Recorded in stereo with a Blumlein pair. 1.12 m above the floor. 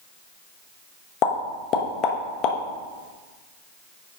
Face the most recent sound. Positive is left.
turn(degrees=35)